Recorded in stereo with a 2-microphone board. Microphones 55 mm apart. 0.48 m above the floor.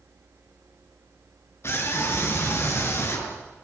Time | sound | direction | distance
1.6 | a scream | 50° left (ahead or behind) | 6 m